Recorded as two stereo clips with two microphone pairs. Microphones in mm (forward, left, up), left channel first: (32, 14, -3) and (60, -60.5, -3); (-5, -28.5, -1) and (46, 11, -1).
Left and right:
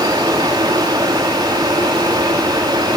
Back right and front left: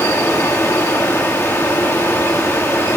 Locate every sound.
0.0 s running water: 90° right, 6 m